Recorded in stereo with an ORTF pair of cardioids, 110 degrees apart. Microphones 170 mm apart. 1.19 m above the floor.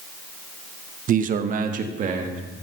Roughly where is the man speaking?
Ahead right.